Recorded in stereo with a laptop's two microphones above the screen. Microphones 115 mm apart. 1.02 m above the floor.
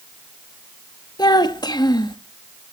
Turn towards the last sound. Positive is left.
turn(degrees=35)  # may be behind; listen again after turning